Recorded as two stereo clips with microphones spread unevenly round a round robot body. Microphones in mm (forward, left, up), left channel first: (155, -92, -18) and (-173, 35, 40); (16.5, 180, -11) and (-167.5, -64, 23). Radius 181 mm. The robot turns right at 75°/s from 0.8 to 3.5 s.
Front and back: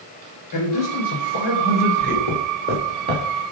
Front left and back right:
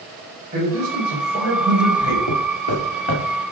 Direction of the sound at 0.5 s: 55° right.